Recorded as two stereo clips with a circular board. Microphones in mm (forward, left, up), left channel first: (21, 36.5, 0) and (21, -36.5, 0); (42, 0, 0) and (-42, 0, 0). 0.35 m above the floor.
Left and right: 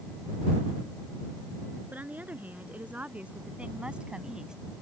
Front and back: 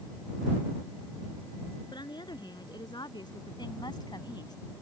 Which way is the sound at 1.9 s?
25° right.